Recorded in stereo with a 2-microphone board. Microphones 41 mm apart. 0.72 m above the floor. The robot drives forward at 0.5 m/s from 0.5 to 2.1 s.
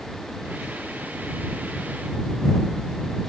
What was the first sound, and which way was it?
Only background noise.